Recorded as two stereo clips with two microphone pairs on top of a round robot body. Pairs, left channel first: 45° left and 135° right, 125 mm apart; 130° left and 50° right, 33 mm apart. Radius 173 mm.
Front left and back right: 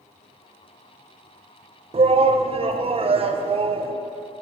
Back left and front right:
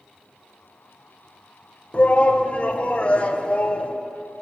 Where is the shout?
Straight behind, 1.1 m.